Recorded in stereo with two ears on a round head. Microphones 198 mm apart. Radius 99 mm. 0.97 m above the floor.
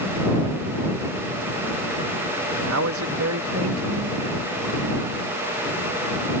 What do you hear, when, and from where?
2.5 s a man speaking: 65° right (ahead or behind)